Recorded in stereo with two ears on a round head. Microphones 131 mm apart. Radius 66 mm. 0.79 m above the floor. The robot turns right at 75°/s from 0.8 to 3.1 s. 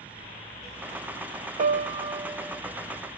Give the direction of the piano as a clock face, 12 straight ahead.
2 o'clock.